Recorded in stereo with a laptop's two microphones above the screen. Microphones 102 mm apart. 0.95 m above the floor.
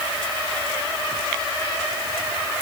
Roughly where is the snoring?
No snoring in this recording.